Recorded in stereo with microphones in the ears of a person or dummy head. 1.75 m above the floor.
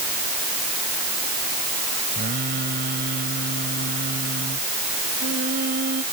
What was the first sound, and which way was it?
Singing, 50° right (ahead or behind).